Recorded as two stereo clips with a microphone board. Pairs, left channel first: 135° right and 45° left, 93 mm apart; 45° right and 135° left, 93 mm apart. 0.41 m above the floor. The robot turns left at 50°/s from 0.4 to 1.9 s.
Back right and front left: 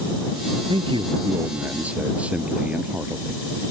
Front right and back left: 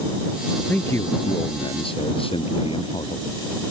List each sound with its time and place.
0.7 s a man speaking: 30° left; by 3.4 s 30° right